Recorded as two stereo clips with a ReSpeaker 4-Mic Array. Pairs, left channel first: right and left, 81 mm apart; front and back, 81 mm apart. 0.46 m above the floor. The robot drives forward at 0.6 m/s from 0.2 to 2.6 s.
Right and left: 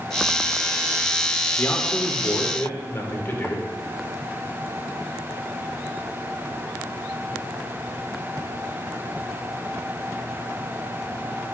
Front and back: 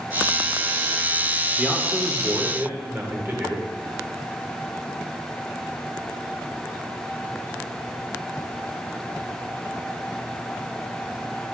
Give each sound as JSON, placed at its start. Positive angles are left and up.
{"t": 1.6, "sound": "a man speaking", "azimuth_deg": -90, "distance_m": 1.2}